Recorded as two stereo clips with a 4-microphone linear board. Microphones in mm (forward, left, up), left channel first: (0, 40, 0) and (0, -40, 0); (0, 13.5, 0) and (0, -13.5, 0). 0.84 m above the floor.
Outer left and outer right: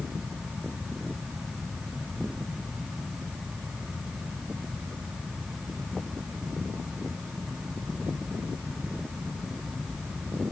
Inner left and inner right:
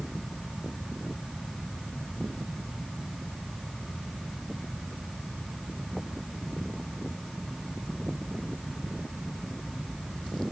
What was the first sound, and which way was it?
Only background noise.